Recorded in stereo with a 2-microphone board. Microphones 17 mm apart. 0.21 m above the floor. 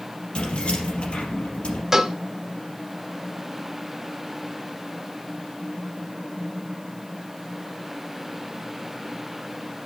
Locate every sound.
0.3 s keys jangling: 65° left (ahead or behind), 3 m
1.9 s a cowbell: 30° right (ahead or behind), 0.8 m